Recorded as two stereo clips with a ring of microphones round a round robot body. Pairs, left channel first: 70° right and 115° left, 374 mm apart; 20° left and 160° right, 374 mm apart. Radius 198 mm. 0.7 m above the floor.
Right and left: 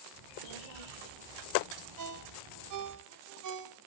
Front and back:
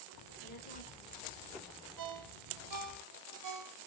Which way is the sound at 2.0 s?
160° left.